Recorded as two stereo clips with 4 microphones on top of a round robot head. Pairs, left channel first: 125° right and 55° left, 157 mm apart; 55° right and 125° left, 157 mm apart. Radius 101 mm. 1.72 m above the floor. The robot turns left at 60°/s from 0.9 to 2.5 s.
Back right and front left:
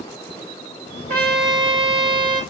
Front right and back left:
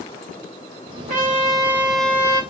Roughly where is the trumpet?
Left.